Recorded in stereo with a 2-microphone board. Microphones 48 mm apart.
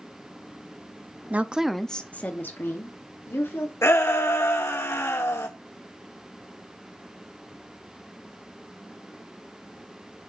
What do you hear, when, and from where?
1.3 s a woman speaking: 35° right (ahead or behind), 0.7 m; by 3.7 s 65° left (ahead or behind), 2.0 m
3.8 s a shout: 70° left (ahead or behind), 1.7 m